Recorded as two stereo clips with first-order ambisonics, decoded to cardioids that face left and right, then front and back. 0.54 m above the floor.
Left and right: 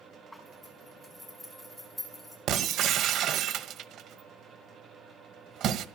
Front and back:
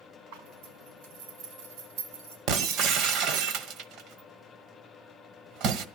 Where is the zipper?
Straight behind, 5 m.